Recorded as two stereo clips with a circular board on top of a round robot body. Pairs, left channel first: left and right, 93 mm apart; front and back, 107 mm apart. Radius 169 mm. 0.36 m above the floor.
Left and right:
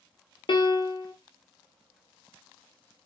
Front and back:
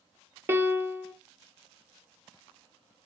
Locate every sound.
0.5 s a piano: 115° left, 1.0 m